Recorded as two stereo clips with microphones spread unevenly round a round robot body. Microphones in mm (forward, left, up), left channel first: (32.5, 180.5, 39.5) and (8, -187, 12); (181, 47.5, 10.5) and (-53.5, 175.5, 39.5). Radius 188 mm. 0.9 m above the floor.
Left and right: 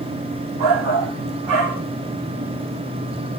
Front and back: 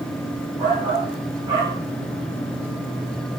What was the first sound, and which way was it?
A shout, 130° right.